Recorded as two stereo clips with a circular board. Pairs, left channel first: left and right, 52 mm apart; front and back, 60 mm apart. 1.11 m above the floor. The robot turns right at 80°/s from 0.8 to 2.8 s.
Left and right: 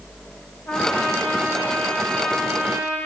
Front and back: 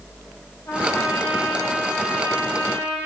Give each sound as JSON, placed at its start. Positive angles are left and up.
{"t": 0.7, "sound": "a trumpet", "azimuth_deg": 40, "distance_m": 2.5}